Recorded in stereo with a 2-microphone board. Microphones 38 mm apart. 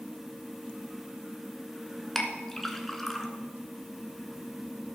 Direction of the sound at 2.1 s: 10° left (ahead or behind).